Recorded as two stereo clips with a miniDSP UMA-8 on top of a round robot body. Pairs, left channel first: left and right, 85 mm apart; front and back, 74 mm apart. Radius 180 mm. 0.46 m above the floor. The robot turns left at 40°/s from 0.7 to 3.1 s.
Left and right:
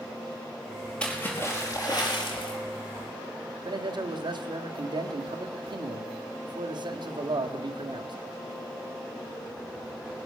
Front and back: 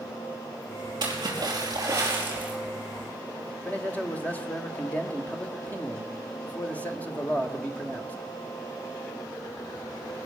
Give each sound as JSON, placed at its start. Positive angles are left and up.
{"t": 1.0, "sound": "a splash", "azimuth_deg": 170, "distance_m": 5.0}
{"t": 3.6, "sound": "a man speaking", "azimuth_deg": -70, "distance_m": 2.0}